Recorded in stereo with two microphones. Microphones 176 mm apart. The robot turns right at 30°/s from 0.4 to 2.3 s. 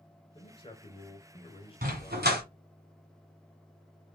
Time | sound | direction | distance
0.3 | a man speaking | 65° left | 1.0 m
1.8 | a dog barking | 60° right (ahead or behind) | 1.2 m